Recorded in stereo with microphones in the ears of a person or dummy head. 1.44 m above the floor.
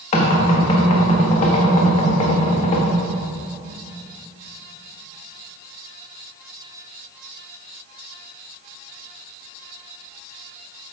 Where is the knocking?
40° left (ahead or behind), 1.4 m.